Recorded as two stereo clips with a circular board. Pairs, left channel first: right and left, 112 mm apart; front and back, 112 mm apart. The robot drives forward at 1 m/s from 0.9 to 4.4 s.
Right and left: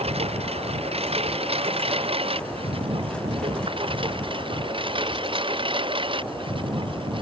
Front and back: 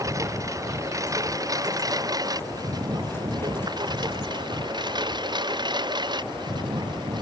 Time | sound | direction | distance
0.0 | a lawn mower | 120° left | ?